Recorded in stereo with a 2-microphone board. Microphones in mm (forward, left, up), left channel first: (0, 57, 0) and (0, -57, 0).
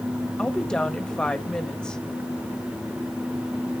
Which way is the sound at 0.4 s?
10° left (ahead or behind).